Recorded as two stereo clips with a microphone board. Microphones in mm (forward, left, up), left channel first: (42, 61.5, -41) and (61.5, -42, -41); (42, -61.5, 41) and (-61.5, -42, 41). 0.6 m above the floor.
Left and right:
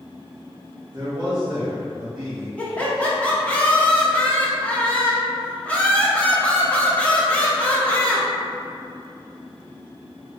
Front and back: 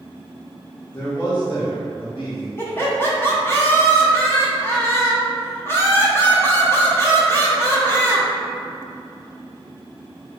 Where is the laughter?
35° left, 0.7 m.